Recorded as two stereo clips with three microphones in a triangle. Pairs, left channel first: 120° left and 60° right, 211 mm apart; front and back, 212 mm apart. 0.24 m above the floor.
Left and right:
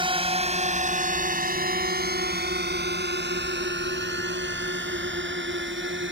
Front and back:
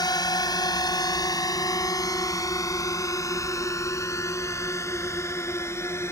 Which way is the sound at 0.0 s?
45° right.